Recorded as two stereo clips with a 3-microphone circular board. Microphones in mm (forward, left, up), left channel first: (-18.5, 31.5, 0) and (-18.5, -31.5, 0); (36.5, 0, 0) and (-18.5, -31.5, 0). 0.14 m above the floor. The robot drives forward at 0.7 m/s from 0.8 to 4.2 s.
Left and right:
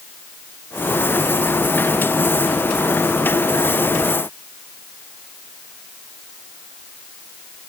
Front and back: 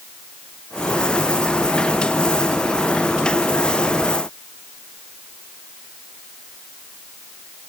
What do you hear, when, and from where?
Only background noise.